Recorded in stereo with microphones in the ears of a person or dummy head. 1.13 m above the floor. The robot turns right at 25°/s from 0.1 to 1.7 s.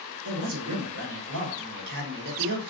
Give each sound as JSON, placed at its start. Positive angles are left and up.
{"t": 0.2, "sound": "a man speaking", "azimuth_deg": -100, "distance_m": 1.0}